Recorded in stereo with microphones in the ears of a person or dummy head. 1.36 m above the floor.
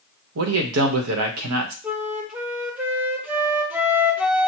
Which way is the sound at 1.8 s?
10° right (ahead or behind).